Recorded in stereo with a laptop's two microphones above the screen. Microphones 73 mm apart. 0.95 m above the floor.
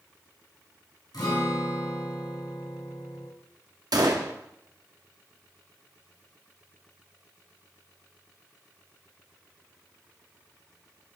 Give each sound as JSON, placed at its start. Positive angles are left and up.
{"t": 1.1, "sound": "a guitar", "side_deg": 80, "distance_m": 4.0}
{"t": 3.9, "sound": "a gunshot", "side_deg": -70, "distance_m": 0.9}